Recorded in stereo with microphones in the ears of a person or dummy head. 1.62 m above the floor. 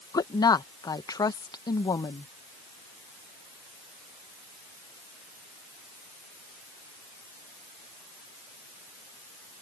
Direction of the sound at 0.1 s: 20° left (ahead or behind).